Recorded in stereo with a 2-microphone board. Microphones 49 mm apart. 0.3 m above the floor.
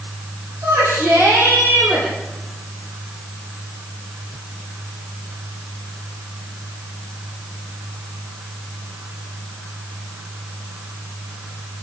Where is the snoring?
I don't hear snoring.